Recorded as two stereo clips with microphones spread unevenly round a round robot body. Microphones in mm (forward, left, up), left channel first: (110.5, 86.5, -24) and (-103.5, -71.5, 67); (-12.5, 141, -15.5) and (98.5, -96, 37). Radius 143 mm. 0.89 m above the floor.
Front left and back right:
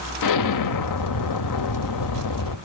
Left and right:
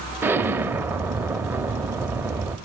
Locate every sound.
0.2 s an explosion: 10° left, 1.0 m